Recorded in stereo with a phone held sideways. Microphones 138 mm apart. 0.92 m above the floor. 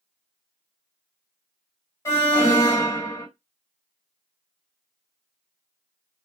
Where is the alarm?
25° left (ahead or behind), 1.6 m.